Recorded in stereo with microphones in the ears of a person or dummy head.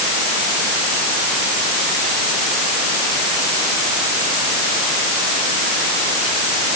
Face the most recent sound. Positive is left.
No sound to turn to.